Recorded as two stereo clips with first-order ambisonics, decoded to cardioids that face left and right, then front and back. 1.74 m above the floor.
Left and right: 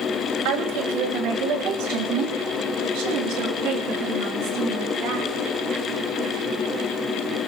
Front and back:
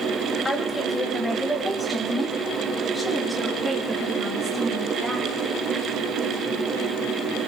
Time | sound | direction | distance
0.5 | a woman speaking | 80° right | 1.5 m